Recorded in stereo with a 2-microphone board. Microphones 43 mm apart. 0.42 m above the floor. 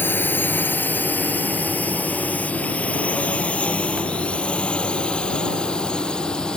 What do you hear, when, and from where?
0.0 s a drone: 50° left (ahead or behind); by 6.6 s 15° left (ahead or behind)